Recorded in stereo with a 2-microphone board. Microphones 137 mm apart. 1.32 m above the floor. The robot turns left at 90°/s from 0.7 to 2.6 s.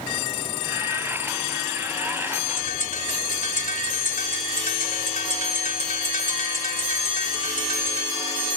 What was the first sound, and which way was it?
A bird, 65° left (ahead or behind).